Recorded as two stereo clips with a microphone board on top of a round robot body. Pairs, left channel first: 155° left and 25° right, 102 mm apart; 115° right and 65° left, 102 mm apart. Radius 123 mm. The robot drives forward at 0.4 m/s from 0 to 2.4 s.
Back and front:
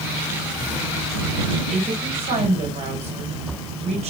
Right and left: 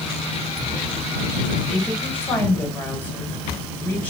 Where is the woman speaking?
35° right, 5.5 m.